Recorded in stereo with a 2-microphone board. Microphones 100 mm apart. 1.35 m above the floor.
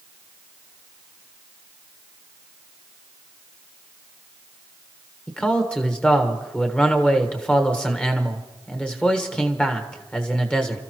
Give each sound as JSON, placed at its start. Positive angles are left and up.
{"t": 5.3, "sound": "a man speaking", "side_deg": 10, "distance_m": 1.4}